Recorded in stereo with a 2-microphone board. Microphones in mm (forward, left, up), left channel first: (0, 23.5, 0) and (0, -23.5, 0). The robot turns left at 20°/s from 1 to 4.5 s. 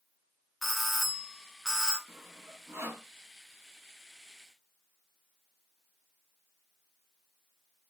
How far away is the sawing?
About 1.3 m.